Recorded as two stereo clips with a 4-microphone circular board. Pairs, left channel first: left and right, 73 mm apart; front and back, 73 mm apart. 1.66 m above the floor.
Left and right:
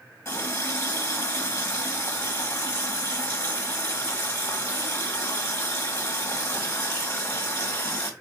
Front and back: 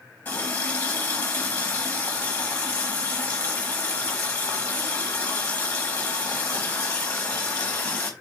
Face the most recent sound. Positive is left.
turn(degrees=55)